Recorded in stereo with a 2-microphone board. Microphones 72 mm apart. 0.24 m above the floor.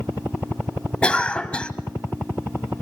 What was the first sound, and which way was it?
A cough, 15° left (ahead or behind).